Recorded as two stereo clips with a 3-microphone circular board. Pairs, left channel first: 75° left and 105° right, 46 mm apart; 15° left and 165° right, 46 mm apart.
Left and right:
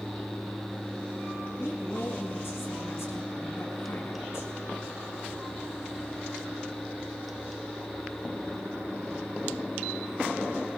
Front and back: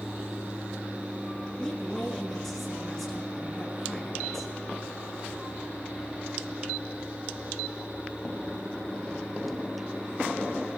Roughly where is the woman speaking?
Left.